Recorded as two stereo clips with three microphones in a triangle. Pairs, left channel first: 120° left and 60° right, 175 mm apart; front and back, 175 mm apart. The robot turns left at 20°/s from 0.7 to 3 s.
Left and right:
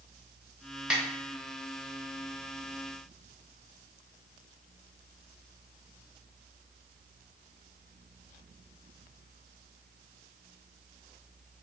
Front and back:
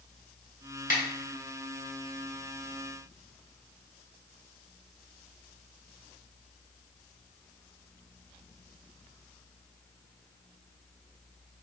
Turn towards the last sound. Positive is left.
turn(degrees=-20)